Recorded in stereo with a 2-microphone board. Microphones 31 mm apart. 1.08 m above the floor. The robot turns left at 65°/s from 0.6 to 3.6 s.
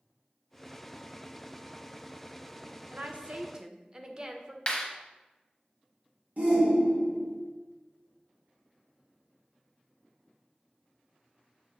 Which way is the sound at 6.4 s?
50° right (ahead or behind).